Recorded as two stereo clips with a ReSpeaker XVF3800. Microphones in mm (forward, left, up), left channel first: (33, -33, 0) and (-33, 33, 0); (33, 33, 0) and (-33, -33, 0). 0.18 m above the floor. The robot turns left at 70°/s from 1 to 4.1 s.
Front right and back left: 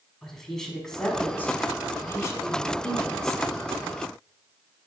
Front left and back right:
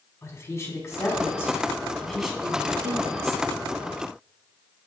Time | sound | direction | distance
0.2 | a woman speaking | 35° left | 1.2 m